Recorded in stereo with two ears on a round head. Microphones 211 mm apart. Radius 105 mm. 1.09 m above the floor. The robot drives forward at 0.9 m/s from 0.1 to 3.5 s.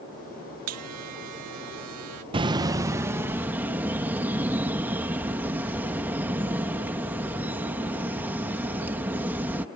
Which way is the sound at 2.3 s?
20° right (ahead or behind).